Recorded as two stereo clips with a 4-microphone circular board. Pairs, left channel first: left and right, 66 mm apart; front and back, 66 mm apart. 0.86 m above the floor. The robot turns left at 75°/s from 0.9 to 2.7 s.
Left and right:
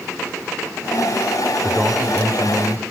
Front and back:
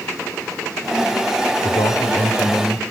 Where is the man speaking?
15° left, 3.5 m; by 2.9 s 65° right, 3.5 m.